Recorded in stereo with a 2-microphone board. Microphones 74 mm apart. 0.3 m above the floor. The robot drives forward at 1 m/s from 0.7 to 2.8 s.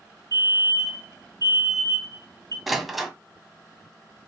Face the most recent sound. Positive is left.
turn(degrees=0)  # may be behind; listen again after turning